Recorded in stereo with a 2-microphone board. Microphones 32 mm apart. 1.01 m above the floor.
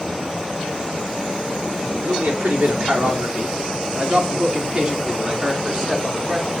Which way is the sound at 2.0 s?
65° right (ahead or behind).